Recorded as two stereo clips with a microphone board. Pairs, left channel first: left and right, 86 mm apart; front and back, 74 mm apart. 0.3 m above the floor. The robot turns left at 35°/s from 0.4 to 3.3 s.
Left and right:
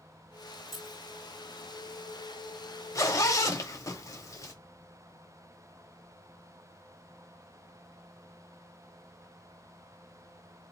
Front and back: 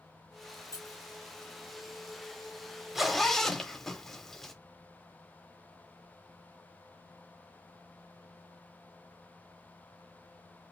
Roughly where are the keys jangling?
Ahead.